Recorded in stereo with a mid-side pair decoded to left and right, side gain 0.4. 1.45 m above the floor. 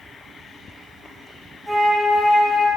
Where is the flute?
5° right, 1.1 m.